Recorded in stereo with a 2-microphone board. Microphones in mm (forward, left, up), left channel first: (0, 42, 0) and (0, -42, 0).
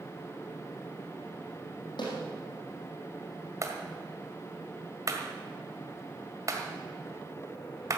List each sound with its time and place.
2.0 s a snare drum: 65° left (ahead or behind), 5 m
3.6 s a clap: 40° right (ahead or behind), 1.6 m